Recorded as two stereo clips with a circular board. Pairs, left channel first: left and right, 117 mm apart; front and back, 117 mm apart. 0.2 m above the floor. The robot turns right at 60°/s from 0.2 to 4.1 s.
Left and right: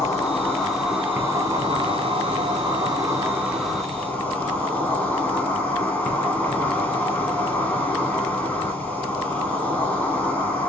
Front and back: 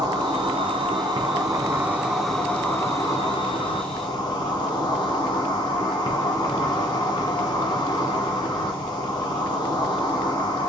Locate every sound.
0.0 s an insect: 150° left, 1.4 m; by 10.7 s 20° left, 1.4 m